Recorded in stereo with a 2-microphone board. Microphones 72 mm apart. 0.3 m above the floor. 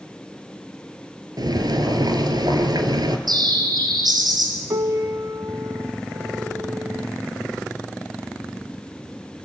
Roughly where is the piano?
Right.